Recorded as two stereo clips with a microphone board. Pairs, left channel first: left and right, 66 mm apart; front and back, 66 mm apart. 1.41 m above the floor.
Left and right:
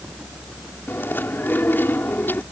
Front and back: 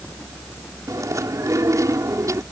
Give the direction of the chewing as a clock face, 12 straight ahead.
7 o'clock.